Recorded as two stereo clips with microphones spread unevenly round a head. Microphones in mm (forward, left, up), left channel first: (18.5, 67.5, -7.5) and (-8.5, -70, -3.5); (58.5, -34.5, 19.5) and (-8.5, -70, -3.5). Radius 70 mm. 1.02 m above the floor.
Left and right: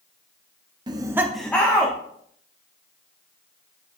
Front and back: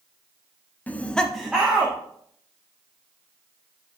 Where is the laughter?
50° right, 0.9 m; by 1.9 s 145° left, 1.3 m.